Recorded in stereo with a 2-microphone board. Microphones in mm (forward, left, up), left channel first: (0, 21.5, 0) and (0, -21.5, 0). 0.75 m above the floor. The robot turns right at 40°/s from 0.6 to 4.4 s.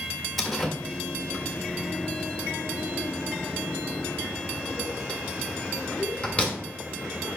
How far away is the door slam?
About 1.7 m.